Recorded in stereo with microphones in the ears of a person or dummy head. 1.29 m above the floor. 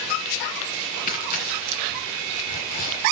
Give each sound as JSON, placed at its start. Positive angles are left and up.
{"t": 1.1, "sound": "tearing paper", "side_deg": 50, "distance_m": 2.5}